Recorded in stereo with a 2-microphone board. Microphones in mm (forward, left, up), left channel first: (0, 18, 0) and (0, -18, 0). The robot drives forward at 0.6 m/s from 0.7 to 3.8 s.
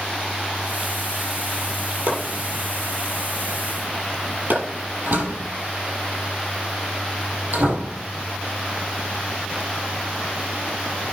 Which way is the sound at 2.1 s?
70° right (ahead or behind).